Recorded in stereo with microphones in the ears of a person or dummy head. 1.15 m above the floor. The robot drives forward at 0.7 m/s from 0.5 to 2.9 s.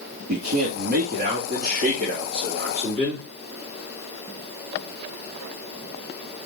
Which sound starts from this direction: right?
A man speaking, at 0.3 s.